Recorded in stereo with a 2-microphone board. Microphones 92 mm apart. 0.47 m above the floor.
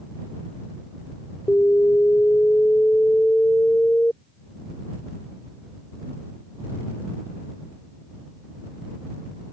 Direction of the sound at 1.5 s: 20° left (ahead or behind).